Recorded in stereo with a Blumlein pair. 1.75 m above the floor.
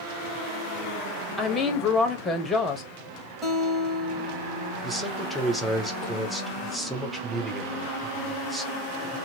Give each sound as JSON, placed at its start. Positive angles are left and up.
{"t": 1.4, "sound": "a woman speaking", "azimuth_deg": 15, "distance_m": 0.9}
{"t": 3.4, "sound": "a guitar", "azimuth_deg": -10, "distance_m": 1.9}
{"t": 4.8, "sound": "a man speaking", "azimuth_deg": 0, "distance_m": 1.0}